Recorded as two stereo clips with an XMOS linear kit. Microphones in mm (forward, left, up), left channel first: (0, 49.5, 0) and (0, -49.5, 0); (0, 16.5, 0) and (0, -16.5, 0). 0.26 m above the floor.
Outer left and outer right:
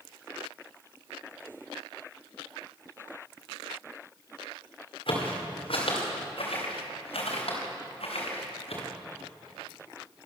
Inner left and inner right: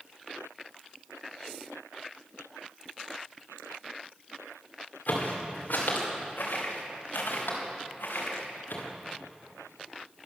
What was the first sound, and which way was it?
Footsteps, 65° left (ahead or behind).